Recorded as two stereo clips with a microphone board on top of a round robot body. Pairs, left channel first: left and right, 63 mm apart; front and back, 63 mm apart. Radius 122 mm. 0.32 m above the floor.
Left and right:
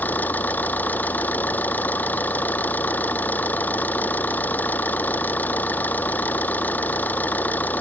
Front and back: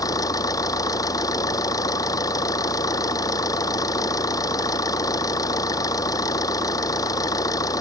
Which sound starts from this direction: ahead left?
An engine running, at 0.0 s.